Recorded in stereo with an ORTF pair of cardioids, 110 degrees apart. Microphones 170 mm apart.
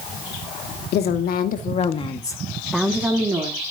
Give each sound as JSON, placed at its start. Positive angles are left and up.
{"t": 0.9, "sound": "a woman speaking", "azimuth_deg": 70, "distance_m": 2.5}